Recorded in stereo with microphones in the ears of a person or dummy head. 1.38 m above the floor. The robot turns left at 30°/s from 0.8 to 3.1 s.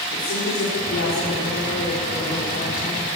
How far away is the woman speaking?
About 4.5 m.